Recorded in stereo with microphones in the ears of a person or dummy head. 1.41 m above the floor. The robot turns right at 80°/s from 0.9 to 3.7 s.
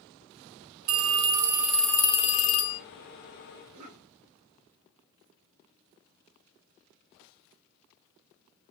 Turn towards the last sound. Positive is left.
turn(degrees=-65)  # may be behind; listen again after turning